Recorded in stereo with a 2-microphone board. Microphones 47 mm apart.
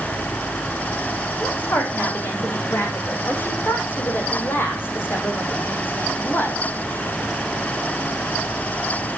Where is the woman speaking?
45° left (ahead or behind), 7.5 m.